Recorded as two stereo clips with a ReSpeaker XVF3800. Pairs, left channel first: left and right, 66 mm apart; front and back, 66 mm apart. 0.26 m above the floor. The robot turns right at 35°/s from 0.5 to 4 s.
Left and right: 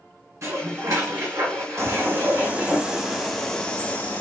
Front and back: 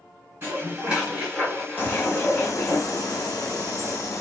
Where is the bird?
50° right, 0.8 m; by 4.2 s 25° left, 0.8 m.